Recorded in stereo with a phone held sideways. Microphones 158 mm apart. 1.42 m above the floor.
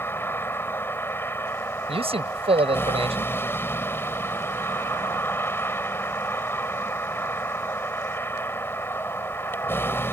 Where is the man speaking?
40° right (ahead or behind).